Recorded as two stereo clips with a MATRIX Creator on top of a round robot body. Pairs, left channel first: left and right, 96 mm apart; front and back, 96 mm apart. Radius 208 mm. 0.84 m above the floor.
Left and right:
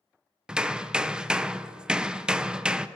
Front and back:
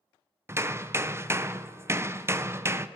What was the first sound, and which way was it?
Hammering, 160° right.